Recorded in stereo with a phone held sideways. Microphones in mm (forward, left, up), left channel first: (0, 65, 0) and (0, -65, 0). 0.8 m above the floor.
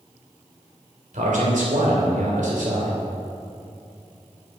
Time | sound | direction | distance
1.1 | a man speaking | 80° right | 2.5 m